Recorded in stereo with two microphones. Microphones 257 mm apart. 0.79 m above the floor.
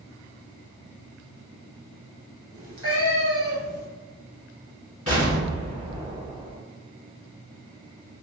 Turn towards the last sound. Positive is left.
turn(degrees=50)  # may be behind; listen again after turning